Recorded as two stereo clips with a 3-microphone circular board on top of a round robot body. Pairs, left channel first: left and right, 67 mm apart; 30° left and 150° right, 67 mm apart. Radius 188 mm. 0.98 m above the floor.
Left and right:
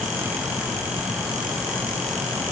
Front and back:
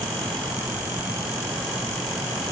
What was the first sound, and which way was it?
Only background noise.